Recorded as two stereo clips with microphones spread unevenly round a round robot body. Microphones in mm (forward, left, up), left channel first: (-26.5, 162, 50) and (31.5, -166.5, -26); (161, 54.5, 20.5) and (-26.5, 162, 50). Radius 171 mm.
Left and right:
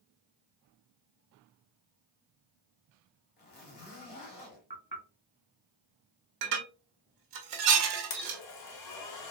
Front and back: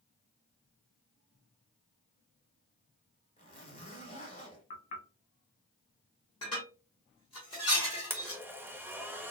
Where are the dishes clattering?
105° right, 1.1 m.